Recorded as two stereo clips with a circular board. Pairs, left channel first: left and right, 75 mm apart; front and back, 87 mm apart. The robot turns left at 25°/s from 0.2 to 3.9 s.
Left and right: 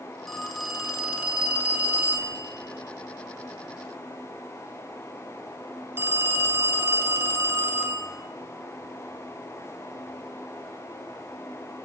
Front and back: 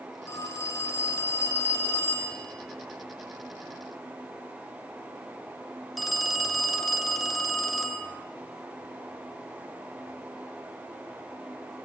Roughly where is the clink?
No clink in this recording.